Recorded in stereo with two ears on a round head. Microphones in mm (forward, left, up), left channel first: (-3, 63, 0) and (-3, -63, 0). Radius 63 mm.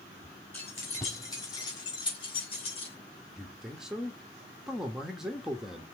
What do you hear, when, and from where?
0.5 s keys jangling: 15° left (ahead or behind), 4 m; by 3.0 s 45° left (ahead or behind), 4.5 m
3.4 s a man speaking: 5° right (ahead or behind), 1.2 m